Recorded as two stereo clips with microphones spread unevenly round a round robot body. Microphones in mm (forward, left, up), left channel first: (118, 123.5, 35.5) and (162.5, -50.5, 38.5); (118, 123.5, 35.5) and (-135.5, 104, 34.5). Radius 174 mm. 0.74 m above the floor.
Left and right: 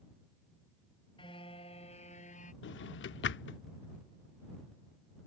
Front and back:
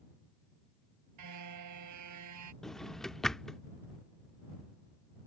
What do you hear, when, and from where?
1.2 s a car horn: straight behind; by 2.5 s 175° left
2.6 s a drawer: 95° left